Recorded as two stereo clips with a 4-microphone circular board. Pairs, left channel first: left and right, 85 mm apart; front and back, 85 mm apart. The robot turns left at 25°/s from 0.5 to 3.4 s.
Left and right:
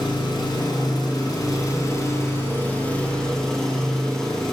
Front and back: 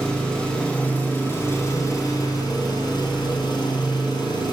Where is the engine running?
80° left, 2.5 m; by 4.5 s 5° left, 2.5 m.